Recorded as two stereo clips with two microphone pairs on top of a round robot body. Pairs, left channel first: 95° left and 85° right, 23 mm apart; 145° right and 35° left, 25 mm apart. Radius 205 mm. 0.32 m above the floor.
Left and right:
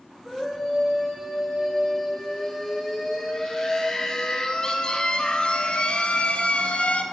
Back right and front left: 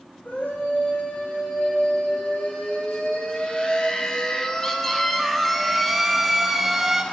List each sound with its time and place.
0.2 s a scream: 160° right, 3.5 m; by 7.0 s 110° left, 2 m